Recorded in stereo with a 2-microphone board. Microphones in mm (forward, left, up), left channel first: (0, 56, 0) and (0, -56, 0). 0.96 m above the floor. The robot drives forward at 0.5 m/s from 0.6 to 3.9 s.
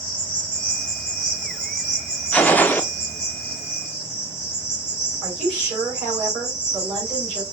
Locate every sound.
0.0 s an insect: 40° left (ahead or behind), 1.8 m; by 7.5 s 20° left (ahead or behind), 3 m
2.3 s a gunshot: 15° left (ahead or behind), 0.5 m
5.2 s a woman speaking: 5° left (ahead or behind), 3 m